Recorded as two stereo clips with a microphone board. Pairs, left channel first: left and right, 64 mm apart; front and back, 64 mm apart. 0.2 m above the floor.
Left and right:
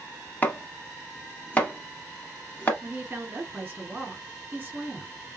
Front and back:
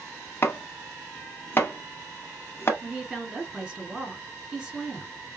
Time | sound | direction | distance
0.4 | chopping | 35° left | 0.9 m
2.8 | a woman speaking | 115° right | 1.6 m